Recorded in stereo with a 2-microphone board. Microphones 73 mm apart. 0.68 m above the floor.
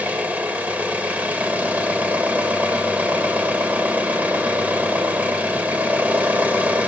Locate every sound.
0.0 s an engine running: 20° right (ahead or behind), 0.8 m